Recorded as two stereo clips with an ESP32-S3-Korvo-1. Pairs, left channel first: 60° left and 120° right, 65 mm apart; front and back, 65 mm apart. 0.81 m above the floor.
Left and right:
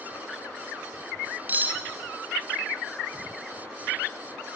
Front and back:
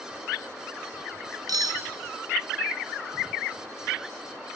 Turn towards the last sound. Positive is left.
turn(degrees=180)